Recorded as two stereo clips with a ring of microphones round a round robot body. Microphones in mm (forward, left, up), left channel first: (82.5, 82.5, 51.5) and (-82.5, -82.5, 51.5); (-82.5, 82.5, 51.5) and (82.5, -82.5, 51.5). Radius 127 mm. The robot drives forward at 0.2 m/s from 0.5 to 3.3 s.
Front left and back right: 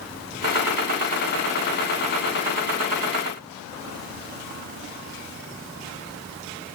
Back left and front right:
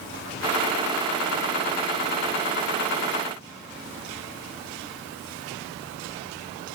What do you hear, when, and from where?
Only background noise.